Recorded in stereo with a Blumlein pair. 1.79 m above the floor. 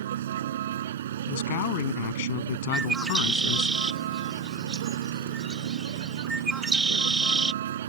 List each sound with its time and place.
0.0 s a vehicle: 60° right
1.3 s a man speaking: 50° left
2.7 s a bird: 15° right